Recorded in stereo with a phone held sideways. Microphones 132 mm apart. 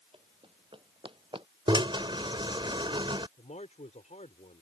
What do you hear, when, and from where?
0.1 s running footsteps: 45° right (ahead or behind); by 1.5 s 40° right (ahead or behind)
1.7 s a drill: 40° right (ahead or behind)
3.4 s a man speaking: 65° left (ahead or behind)